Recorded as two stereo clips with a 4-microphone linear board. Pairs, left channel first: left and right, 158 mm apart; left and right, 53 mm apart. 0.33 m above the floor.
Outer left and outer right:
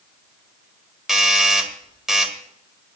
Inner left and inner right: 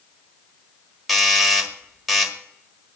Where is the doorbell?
5° right (ahead or behind), 1.5 m.